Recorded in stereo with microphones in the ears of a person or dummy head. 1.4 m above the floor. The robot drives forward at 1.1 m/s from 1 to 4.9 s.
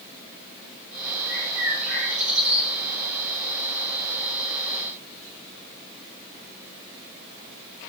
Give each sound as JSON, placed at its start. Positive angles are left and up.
{"t": 1.3, "sound": "a bird", "side_deg": -5, "distance_m": 8.0}